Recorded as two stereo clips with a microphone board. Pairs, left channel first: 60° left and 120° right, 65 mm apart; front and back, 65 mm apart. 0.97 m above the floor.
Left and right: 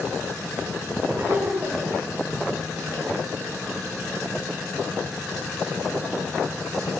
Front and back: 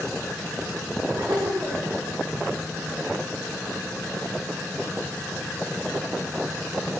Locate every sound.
1.2 s laughter: 160° right, 10 m